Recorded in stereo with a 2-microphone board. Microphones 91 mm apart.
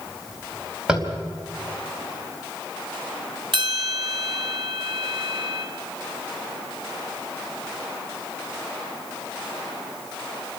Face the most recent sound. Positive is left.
turn(degrees=-65)  # may be behind; listen again after turning